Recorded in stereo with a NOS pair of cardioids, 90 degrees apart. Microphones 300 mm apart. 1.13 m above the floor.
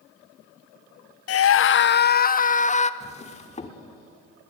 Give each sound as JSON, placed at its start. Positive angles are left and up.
{"t": 1.3, "sound": "a scream", "azimuth_deg": 55, "distance_m": 0.6}
{"t": 3.0, "sound": "a drawer", "azimuth_deg": 20, "distance_m": 1.9}